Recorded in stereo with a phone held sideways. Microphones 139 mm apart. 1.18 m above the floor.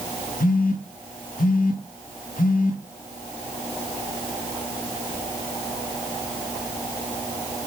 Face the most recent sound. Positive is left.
turn(degrees=80)